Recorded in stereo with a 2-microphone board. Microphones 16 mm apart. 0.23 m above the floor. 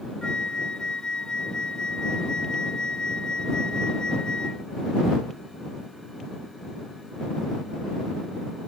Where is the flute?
60° left (ahead or behind).